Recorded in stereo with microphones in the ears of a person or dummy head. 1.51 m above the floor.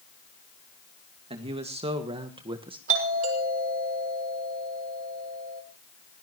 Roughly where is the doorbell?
Right.